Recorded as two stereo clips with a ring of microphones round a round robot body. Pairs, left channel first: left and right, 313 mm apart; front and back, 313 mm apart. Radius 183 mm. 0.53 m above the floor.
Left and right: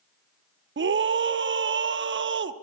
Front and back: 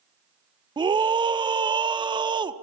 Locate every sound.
0.8 s a scream: 110° right, 0.9 m